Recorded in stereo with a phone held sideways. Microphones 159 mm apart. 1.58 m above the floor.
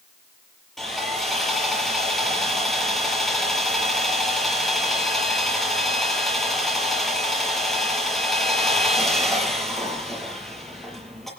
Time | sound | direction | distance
0.8 | sawing | centre (ahead or behind) | 6 m